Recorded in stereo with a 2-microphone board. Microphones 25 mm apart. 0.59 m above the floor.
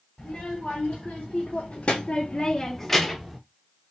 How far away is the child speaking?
About 1.5 m.